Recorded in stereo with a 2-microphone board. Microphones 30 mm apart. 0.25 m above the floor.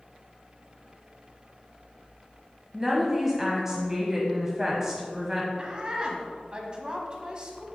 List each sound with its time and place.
2.7 s a woman speaking: 15° right (ahead or behind), 1.2 m
5.6 s a woman speaking: 30° right (ahead or behind), 1.4 m